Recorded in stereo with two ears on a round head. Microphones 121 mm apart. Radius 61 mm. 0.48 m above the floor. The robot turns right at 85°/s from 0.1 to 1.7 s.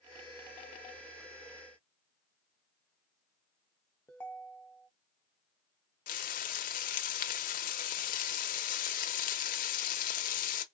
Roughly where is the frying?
Left.